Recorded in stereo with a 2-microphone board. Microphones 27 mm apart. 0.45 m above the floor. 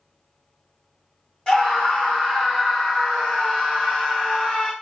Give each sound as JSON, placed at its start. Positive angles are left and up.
{"t": 1.5, "sound": "a scream", "side_deg": 25, "distance_m": 1.9}